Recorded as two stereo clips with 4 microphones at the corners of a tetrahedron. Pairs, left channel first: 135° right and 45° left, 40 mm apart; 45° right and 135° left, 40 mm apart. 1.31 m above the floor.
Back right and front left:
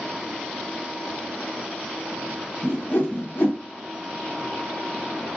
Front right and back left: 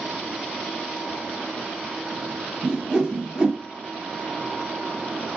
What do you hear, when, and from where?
2.6 s a whoosh: 160° right, 0.9 m